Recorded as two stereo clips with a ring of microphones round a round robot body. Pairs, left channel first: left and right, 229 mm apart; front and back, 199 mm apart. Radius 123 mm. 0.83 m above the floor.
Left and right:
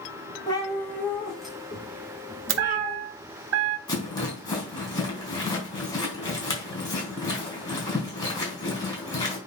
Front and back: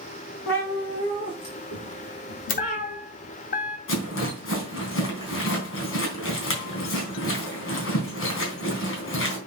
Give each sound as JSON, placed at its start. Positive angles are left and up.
{"t": 0.5, "sound": "a cat meowing", "azimuth_deg": 15, "distance_m": 3.0}
{"t": 2.5, "sound": "a chime", "azimuth_deg": -55, "distance_m": 1.0}
{"t": 3.9, "sound": "a rattle", "azimuth_deg": 15, "distance_m": 4.0}